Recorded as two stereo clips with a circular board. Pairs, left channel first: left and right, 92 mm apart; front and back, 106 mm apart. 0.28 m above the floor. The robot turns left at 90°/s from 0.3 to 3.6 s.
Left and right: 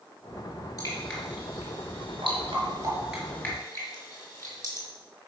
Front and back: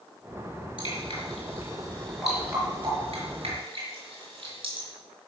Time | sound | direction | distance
0.8 | dripping | 40° left | 4.5 m